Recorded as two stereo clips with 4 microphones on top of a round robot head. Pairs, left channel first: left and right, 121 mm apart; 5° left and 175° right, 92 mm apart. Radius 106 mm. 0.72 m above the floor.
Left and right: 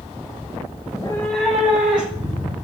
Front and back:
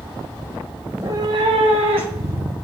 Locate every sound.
0.9 s a cat meowing: 110° left, 0.5 m; by 2.5 s 170° right, 2.0 m